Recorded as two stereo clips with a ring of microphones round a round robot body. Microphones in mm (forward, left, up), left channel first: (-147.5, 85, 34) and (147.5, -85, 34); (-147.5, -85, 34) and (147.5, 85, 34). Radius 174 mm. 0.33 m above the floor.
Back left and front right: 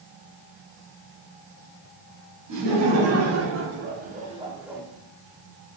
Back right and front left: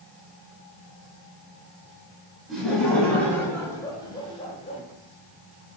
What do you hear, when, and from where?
2.5 s laughter: 60° right, 3 m; by 4.8 s 125° right, 1.5 m